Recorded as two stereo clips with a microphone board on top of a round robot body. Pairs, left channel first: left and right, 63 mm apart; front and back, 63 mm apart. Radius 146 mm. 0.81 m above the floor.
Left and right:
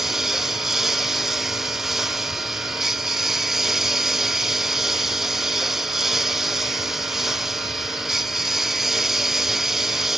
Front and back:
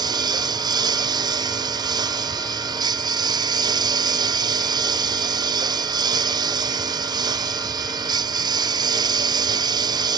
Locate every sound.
0.0 s a lawn mower: 175° right